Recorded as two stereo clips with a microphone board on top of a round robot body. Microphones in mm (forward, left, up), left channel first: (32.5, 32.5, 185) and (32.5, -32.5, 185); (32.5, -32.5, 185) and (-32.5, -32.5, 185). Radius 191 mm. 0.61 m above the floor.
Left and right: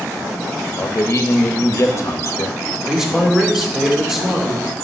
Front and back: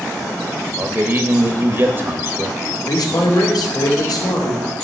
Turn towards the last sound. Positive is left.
turn(degrees=-5)